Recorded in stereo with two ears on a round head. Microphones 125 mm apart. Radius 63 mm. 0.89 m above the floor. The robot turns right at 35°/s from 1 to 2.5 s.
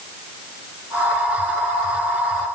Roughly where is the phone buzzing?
I don't hear a phone buzzing.